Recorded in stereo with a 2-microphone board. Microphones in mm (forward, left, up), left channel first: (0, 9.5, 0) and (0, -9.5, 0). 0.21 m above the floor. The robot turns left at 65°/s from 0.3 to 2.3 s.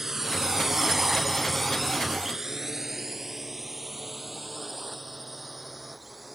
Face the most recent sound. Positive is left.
turn(degrees=-5)  # may be behind; listen again after turning